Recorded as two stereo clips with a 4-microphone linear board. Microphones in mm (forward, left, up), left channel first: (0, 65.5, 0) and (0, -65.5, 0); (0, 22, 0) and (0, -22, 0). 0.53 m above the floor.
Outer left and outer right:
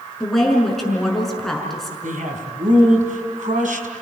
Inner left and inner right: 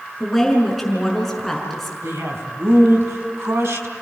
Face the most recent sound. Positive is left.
turn(degrees=-75)  # may be behind; listen again after turning